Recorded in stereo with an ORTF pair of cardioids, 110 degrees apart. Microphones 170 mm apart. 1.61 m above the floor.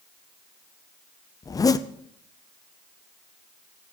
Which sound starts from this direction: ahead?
A zipper, at 1.4 s.